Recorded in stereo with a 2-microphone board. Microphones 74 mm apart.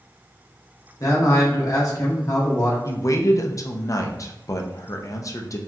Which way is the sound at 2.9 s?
50° left (ahead or behind).